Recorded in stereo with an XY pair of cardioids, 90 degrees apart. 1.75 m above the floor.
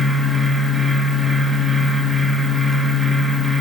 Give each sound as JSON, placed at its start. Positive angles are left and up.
{"t": 0.0, "sound": "a fan", "azimuth_deg": 5, "distance_m": 1.8}